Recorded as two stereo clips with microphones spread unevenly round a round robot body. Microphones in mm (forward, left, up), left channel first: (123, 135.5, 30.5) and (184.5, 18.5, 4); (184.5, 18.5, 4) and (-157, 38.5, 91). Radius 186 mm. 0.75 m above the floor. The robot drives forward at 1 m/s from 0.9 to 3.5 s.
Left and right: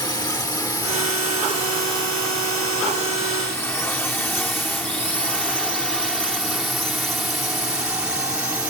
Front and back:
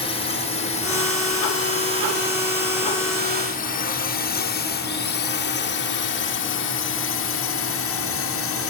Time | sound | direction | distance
0.0 | a drone | 60° left | ?